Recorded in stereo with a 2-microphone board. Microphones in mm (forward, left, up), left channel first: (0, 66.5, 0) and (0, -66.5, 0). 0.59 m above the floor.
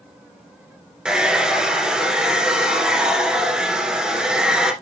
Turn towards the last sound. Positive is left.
turn(degrees=-5)  # may be behind; listen again after turning